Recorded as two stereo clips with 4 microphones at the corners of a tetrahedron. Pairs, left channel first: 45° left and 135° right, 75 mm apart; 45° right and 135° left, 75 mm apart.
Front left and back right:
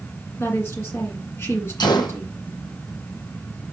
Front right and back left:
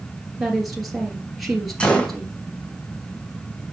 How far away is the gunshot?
About 1.5 m.